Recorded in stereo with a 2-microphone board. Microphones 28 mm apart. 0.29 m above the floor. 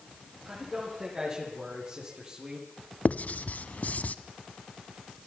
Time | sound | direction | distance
0.5 | a man speaking | 25° right (ahead or behind) | 9 m
3.0 | writing | 70° left (ahead or behind) | 1.0 m